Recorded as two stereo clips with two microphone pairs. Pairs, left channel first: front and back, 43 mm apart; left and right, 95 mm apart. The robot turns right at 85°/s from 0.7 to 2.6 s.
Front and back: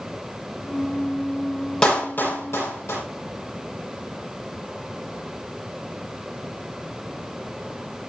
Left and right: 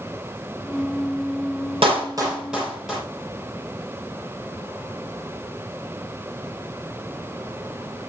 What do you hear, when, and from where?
1.8 s a clap: 65° right, 8 m; by 3.0 s straight ahead, 8 m